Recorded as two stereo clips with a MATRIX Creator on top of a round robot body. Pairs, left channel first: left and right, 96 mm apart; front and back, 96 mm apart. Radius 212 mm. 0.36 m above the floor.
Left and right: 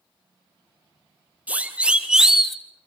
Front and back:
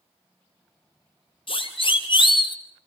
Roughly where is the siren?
Ahead.